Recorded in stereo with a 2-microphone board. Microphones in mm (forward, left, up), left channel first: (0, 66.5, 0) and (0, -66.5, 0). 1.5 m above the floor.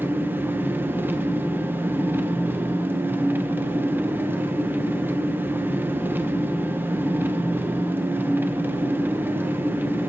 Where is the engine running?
15° right (ahead or behind), 0.9 m.